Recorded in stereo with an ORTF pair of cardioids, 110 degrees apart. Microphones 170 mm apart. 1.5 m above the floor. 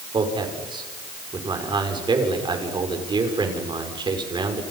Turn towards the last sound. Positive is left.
turn(degrees=-30)